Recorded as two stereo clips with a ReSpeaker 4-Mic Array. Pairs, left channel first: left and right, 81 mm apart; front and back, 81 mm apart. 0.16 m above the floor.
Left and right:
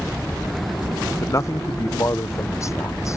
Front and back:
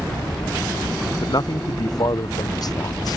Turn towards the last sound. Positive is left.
turn(degrees=35)